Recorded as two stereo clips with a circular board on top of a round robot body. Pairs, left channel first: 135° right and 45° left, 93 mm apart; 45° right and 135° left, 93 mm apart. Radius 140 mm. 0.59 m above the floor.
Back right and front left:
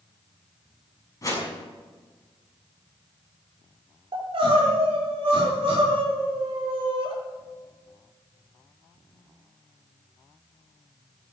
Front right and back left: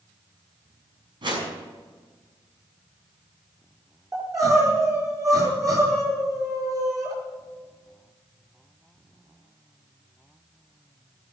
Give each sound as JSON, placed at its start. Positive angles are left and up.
{"t": 1.2, "sound": "a whoosh", "azimuth_deg": 170, "distance_m": 6.5}
{"t": 4.1, "sound": "crying", "azimuth_deg": 80, "distance_m": 6.0}